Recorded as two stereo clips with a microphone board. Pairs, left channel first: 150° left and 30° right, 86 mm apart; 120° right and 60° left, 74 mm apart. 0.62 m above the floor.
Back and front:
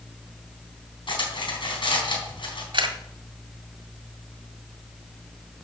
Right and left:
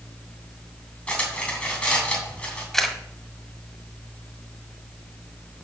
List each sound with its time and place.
1.1 s cutlery clinking: 165° left, 3 m
2.7 s a camera shutter: 35° right, 1.3 m